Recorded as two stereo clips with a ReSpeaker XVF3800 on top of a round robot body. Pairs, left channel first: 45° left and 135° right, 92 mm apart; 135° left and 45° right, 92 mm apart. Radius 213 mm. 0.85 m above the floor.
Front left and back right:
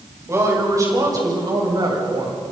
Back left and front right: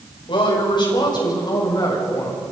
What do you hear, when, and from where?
0.3 s a woman speaking: 165° left, 6 m; by 2.4 s 175° right, 7.5 m